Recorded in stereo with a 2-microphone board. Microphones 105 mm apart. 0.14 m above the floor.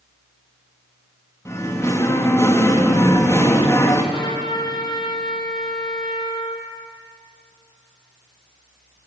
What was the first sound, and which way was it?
Singing, 25° left (ahead or behind).